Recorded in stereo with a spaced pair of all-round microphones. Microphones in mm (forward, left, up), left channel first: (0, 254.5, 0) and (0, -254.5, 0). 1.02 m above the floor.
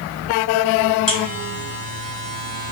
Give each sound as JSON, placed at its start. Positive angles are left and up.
{"t": 1.1, "sound": "a buzzer", "side_deg": 60, "distance_m": 2.0}